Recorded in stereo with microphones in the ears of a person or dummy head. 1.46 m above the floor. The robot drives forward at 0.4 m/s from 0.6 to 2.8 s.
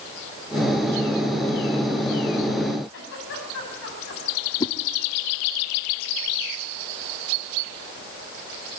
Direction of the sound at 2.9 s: 80° left.